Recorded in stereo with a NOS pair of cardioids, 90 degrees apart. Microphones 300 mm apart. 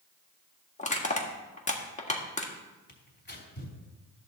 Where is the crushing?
25° left, 1.7 m.